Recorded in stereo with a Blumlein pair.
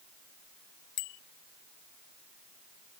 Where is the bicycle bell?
45° left.